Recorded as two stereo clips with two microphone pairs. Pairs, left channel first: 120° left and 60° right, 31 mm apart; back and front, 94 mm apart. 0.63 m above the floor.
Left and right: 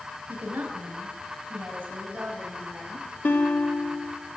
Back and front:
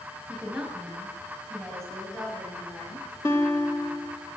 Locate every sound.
0.3 s a woman speaking: 75° right, 4 m; by 3.1 s 105° right, 4.5 m
3.2 s a guitar: 120° left, 1.2 m